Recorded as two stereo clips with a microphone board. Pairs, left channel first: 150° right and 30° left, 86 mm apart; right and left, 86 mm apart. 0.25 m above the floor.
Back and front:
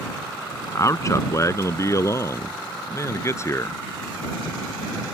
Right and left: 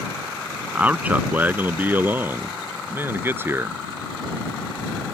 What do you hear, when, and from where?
0.8 s a man speaking: 165° left; by 3.8 s 155° left